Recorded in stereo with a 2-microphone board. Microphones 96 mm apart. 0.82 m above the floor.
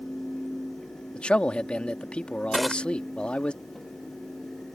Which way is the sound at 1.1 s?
10° left (ahead or behind).